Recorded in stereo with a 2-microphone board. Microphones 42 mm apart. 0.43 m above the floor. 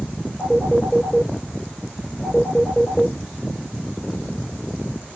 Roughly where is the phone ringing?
Centre.